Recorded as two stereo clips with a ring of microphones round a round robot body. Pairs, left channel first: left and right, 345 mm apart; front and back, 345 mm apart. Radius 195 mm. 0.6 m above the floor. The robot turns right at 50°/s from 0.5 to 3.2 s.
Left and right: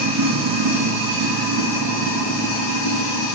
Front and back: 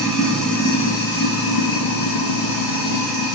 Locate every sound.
0.0 s running water: 90° right, 1.6 m; by 3.3 s 45° left, 1.6 m